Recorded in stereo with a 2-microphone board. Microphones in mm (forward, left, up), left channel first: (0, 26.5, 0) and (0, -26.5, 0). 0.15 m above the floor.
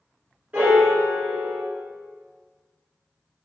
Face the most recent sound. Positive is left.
turn(degrees=-25)  # may be behind; listen again after turning